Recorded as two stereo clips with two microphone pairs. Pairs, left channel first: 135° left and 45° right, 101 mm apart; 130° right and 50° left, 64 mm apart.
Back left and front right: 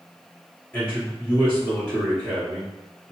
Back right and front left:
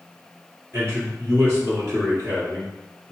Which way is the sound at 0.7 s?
70° left.